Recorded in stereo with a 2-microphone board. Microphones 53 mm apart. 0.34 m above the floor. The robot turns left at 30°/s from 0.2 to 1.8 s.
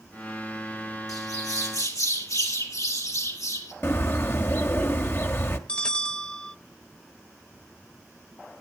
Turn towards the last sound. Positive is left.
turn(degrees=20)  # may be behind; listen again after turning